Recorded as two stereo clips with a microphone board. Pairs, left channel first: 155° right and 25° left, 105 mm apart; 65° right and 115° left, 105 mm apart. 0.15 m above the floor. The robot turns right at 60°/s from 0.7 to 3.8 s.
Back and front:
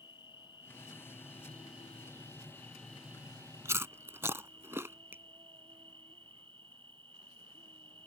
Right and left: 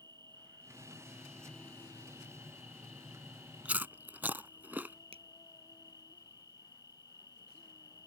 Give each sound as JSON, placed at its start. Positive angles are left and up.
{"t": 0.0, "sound": "an insect", "azimuth_deg": 160}
{"t": 3.6, "sound": "chewing", "azimuth_deg": 50}
{"t": 5.1, "sound": "a finger snap", "azimuth_deg": 95}